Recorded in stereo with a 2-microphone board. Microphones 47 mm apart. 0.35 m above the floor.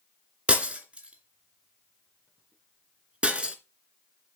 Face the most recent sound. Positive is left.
turn(degrees=-25)  # may be behind; listen again after turning